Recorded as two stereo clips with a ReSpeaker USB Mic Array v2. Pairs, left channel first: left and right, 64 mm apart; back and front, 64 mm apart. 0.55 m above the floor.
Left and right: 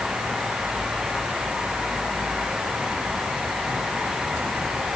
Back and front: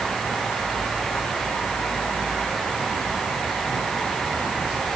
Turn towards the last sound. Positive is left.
No sound to turn to.